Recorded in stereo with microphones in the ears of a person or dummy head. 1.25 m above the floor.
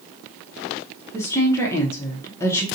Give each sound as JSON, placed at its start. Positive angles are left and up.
{"t": 1.1, "sound": "a woman speaking", "side_deg": 15, "distance_m": 0.7}